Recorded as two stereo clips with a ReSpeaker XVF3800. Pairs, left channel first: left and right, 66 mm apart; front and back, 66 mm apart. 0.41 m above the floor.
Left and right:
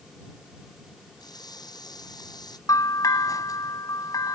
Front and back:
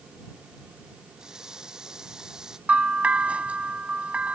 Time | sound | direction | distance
1.2 | a running tap | 100° left | ?
2.7 | a bell | 110° left | ?